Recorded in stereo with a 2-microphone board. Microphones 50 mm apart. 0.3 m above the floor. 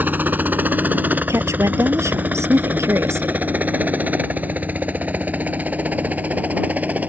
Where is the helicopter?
35° right (ahead or behind); by 7.1 s 30° right (ahead or behind).